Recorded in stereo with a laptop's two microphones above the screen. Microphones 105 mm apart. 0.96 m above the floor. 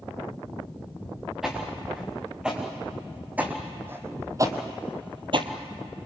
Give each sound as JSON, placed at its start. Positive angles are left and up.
{"t": 1.4, "sound": "footsteps", "side_deg": -5, "distance_m": 6.0}